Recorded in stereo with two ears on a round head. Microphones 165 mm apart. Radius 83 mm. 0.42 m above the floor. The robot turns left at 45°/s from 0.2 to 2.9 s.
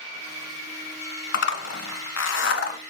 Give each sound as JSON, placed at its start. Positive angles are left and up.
{"t": 1.3, "sound": "a zipper", "side_deg": 65, "distance_m": 1.1}